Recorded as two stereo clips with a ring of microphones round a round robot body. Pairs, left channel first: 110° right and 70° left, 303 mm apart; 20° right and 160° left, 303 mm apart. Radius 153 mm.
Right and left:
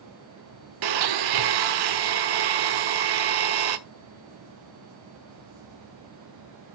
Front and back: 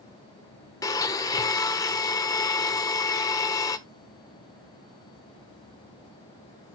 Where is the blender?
55° left, 1.0 m.